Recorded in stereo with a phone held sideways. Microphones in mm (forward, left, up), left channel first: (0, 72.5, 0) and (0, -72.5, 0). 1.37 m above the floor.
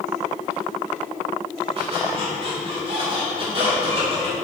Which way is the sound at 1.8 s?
40° right (ahead or behind).